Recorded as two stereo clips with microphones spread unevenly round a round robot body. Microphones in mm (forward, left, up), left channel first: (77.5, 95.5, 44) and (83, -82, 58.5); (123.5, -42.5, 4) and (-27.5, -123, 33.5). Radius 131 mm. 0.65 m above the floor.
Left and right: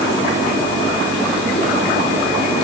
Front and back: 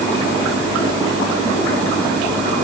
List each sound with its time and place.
Only background noise.